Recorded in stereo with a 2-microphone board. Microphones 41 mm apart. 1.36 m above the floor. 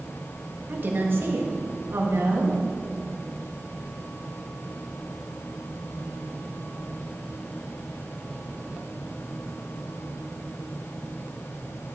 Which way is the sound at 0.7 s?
45° right (ahead or behind).